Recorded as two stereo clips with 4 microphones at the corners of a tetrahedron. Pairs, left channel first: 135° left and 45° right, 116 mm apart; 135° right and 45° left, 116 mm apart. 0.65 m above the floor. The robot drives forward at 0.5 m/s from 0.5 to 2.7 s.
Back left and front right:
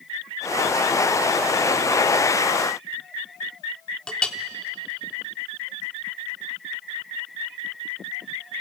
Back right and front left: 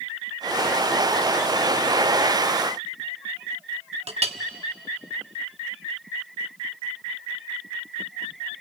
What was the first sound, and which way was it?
A clink, 55° left.